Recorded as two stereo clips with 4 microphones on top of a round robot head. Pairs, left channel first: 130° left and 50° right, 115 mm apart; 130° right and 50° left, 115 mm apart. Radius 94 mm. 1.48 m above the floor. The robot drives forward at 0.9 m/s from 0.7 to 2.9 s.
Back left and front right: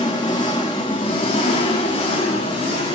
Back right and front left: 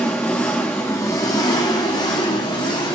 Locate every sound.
0.0 s an engine running: 160° left, 0.9 m; by 3.0 s 175° left, 2.5 m